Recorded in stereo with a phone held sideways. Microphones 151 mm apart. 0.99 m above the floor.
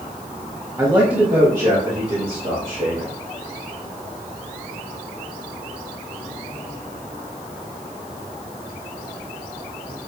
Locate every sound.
0.8 s a man speaking: 20° right (ahead or behind), 0.7 m; by 3.1 s 65° right (ahead or behind), 2 m